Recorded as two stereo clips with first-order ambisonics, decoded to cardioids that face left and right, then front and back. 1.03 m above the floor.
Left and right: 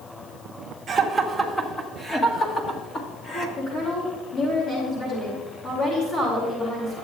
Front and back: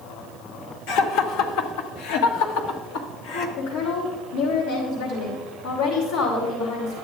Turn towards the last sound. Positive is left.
turn(degrees=35)